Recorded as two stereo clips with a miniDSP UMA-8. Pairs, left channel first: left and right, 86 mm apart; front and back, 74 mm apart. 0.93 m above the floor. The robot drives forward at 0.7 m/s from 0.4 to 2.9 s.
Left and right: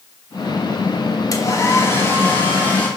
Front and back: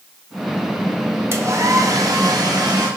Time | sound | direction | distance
1.3 | a hair dryer | 130° left | 0.9 m